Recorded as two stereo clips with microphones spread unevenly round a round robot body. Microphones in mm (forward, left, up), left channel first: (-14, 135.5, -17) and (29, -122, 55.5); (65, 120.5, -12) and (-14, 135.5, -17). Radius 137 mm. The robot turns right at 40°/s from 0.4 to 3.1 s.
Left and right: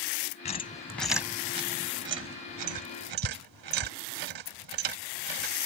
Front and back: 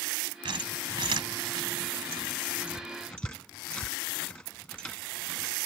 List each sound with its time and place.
0.5 s a squeak: 160° left; by 5.5 s 95° right